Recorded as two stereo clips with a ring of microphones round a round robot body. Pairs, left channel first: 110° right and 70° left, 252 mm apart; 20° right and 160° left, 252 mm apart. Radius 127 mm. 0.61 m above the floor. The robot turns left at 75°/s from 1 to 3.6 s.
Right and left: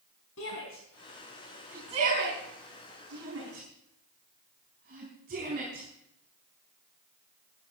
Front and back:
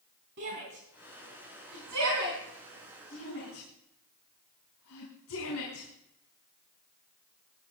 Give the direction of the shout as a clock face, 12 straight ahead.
5 o'clock.